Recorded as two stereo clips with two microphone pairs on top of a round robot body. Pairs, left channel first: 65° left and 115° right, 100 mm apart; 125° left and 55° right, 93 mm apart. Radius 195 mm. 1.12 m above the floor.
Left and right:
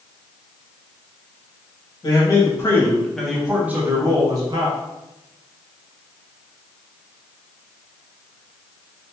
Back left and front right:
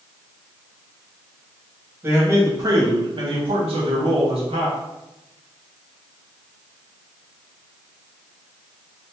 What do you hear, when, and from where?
2.0 s a man speaking: 15° left, 1.2 m; by 4.8 s 70° right, 1.2 m